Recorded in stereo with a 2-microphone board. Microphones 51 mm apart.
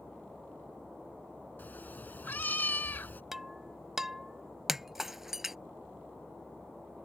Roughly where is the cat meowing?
Left.